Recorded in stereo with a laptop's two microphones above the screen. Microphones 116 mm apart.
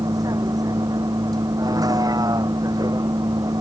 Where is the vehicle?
35° right (ahead or behind).